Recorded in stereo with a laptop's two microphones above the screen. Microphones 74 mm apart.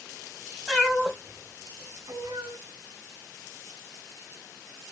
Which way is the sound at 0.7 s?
10° left (ahead or behind).